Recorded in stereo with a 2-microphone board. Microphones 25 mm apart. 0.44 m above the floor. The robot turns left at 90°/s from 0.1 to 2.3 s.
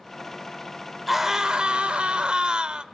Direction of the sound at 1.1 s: 5° right.